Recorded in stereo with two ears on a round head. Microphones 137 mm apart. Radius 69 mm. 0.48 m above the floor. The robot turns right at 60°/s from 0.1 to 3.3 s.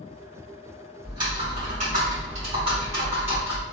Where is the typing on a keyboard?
150° right, 1.3 m; by 3.6 s 15° right, 1.3 m.